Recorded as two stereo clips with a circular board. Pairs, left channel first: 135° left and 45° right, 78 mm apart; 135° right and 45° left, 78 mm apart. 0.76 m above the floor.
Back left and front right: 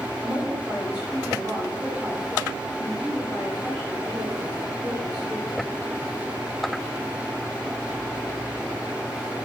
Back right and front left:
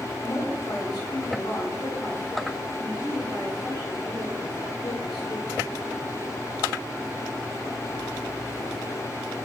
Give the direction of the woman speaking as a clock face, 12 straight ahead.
4 o'clock.